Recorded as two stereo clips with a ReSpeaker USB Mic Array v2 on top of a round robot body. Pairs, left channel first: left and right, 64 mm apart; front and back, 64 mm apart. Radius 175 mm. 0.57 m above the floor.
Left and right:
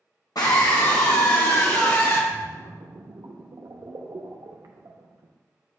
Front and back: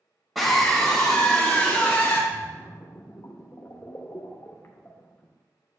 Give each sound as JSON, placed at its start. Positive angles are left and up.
{"t": 0.3, "sound": "a scream", "azimuth_deg": 90, "distance_m": 1.9}
{"t": 2.3, "sound": "a splash", "azimuth_deg": -55, "distance_m": 0.6}